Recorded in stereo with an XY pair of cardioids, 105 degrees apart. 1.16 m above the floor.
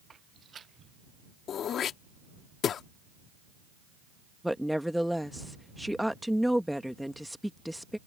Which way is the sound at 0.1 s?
35° right.